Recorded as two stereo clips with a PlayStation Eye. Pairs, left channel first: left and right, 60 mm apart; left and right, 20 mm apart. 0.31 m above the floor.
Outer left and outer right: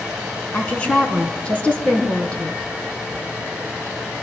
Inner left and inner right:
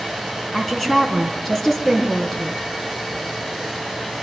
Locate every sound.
0.5 s a woman speaking: 20° left (ahead or behind), 2.5 m